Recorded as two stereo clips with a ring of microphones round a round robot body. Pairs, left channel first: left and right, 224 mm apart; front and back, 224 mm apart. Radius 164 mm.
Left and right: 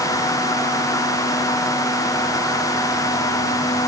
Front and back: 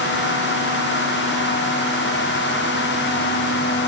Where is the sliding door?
I don't hear a sliding door.